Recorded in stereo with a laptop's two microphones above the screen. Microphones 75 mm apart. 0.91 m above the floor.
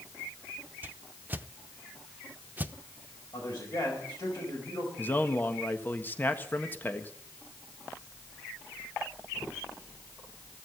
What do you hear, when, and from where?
0.8 s a whoosh: 25° right (ahead or behind), 0.7 m
3.3 s a man speaking: 60° left (ahead or behind), 4.5 m
5.0 s a man speaking: 25° left (ahead or behind), 1.4 m